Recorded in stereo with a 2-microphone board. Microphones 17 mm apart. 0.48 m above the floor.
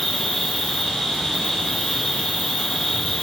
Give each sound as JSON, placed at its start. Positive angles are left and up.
{"t": 0.0, "sound": "an insect", "side_deg": 45, "distance_m": 1.8}